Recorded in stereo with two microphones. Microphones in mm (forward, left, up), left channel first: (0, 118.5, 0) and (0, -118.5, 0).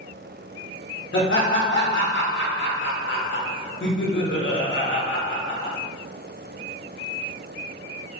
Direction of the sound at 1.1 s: 55° left (ahead or behind).